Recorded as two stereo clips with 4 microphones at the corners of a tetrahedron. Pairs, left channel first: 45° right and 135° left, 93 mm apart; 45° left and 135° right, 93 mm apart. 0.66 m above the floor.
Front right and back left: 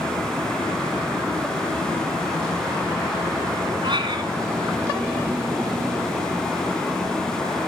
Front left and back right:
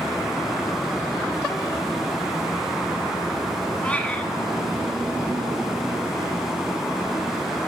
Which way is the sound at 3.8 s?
120° left.